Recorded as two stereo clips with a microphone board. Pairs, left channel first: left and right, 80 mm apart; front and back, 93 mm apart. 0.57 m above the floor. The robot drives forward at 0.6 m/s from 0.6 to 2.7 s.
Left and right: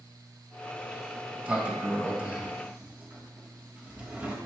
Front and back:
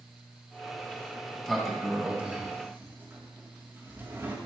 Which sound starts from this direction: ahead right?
A sliding door, at 0.8 s.